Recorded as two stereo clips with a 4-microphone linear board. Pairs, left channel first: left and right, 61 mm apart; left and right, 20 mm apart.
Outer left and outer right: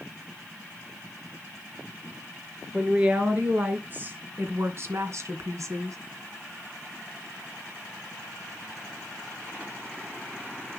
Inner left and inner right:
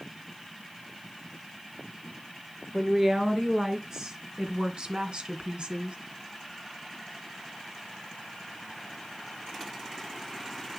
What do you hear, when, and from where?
2.7 s a woman speaking: 20° right (ahead or behind), 4 m; by 6.0 s 60° right (ahead or behind), 2 m